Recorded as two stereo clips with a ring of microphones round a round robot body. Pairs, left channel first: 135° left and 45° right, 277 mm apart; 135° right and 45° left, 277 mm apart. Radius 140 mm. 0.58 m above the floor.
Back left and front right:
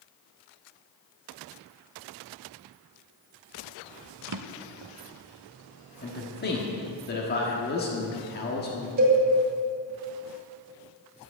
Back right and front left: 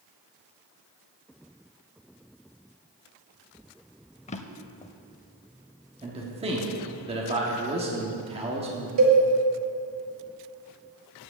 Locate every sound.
4.3 s a drawer: 70° right, 0.5 m
6.0 s a man speaking: 105° left, 1.3 m
9.0 s a cowbell: 10° left, 2 m